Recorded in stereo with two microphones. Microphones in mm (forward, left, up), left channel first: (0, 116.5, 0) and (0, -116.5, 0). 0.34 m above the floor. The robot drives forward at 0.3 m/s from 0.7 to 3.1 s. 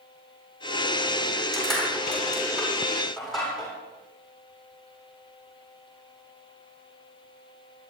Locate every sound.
1.5 s crushing: centre (ahead or behind), 9 m